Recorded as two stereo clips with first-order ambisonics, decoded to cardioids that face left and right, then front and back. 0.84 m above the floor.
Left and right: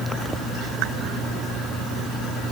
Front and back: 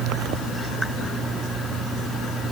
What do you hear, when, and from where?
Only background noise.